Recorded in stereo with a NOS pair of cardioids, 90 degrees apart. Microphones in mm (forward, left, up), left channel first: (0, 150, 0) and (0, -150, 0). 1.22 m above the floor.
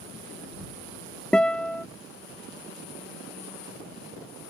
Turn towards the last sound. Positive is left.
turn(degrees=5)